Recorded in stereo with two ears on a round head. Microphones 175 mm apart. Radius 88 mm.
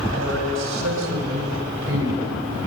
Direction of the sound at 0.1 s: 75° right (ahead or behind).